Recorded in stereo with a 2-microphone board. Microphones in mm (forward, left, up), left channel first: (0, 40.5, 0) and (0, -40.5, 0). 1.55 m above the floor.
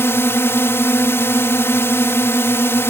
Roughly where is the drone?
Left.